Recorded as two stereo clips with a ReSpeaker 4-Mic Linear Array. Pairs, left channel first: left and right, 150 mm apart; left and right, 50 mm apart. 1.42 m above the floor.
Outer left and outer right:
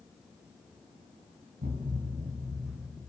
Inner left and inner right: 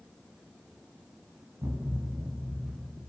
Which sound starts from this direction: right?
A thud, at 1.6 s.